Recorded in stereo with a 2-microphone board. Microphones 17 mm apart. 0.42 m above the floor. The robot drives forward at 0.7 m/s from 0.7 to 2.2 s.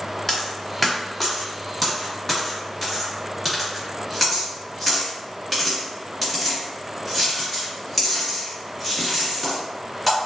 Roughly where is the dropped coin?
Left.